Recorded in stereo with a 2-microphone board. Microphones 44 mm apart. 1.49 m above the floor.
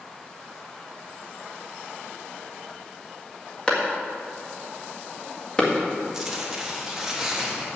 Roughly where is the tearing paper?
Centre.